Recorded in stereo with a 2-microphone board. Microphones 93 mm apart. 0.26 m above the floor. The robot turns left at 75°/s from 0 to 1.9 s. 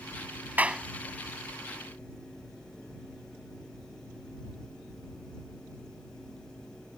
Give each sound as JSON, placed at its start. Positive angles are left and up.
{"t": 0.6, "sound": "a clap", "side_deg": -20}